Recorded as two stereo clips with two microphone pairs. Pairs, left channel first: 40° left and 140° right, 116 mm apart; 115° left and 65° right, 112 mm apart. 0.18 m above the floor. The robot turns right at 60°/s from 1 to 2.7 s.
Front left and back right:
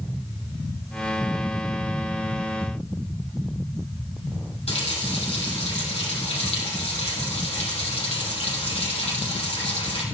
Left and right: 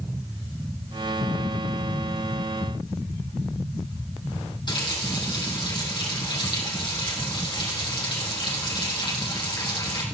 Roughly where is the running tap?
Left.